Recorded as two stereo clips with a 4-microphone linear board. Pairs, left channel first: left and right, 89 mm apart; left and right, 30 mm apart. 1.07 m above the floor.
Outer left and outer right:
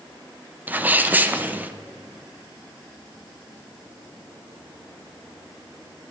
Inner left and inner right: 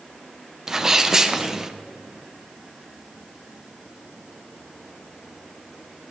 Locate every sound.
0.7 s a sneeze: 20° right (ahead or behind), 0.6 m